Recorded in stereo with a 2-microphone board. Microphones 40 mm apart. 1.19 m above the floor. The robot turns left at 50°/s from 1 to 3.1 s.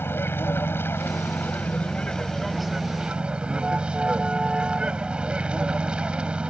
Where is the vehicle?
80° left; by 6.5 s 25° right.